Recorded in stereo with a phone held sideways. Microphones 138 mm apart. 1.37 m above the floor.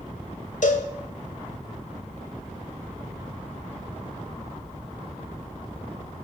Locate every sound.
0.6 s a cowbell: 65° left (ahead or behind), 1.0 m